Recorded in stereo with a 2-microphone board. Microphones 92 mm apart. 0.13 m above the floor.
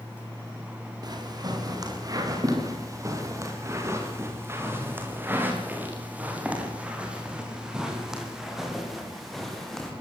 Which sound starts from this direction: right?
Footsteps, at 1.0 s.